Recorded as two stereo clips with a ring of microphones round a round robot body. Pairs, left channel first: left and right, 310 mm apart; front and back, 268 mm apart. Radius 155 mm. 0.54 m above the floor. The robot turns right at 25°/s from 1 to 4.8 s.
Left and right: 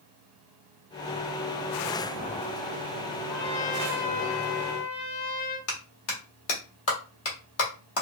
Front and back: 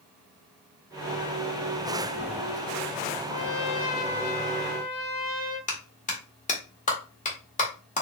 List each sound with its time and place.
3.3 s a trumpet: 30° left, 1.8 m; by 5.6 s 70° left, 1.8 m
5.7 s a clap: 60° left, 1.6 m